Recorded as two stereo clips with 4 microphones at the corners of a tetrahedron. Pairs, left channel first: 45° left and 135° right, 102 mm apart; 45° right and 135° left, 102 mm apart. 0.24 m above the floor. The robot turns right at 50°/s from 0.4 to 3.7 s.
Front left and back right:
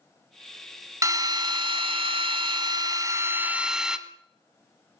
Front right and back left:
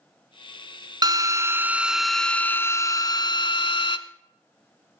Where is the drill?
170° left, 0.9 m; by 4.0 s 55° right, 0.9 m.